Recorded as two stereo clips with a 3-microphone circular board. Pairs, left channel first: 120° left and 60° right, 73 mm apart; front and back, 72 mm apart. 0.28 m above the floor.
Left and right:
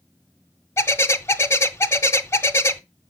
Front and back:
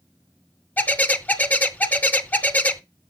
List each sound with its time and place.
0.8 s a bird: 65° left, 0.6 m